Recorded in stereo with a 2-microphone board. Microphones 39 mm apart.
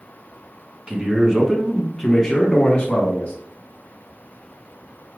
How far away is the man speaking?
About 1.2 m.